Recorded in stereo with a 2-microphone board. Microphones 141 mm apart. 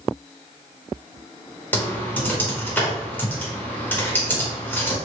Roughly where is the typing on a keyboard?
Centre.